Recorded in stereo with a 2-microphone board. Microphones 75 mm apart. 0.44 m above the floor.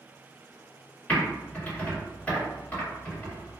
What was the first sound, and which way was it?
Typing on a keyboard, 15° left (ahead or behind).